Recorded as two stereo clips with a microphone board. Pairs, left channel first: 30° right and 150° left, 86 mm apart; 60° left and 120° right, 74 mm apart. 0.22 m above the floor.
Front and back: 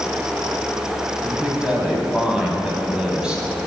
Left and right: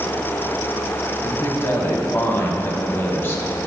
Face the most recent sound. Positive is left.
turn(degrees=80)